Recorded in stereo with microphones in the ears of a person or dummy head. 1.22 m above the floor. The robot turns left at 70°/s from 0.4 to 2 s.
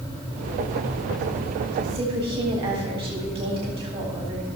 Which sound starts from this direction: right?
A woman speaking, at 1.8 s.